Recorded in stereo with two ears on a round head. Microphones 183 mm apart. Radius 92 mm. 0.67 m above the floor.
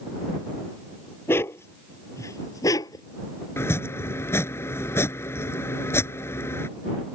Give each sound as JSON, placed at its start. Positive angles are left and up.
{"t": 1.3, "sound": "a dog barking", "side_deg": 10}
{"t": 3.6, "sound": "chopping", "side_deg": 15}